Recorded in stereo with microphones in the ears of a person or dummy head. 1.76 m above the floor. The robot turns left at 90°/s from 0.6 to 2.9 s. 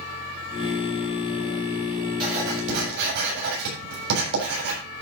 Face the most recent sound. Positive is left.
turn(degrees=-55)